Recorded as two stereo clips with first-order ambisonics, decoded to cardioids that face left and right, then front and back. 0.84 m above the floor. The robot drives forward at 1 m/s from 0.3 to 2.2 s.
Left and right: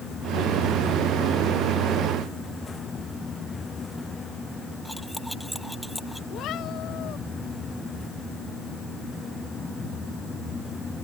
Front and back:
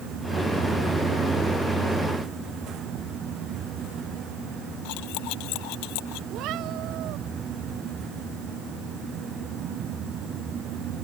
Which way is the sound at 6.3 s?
140° left.